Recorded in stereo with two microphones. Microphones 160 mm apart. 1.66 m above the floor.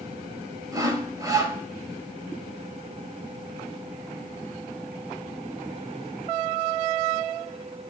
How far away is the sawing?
About 2 m.